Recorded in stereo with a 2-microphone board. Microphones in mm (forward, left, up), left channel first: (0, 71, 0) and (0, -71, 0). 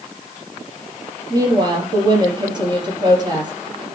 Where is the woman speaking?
30° right (ahead or behind), 5.5 m.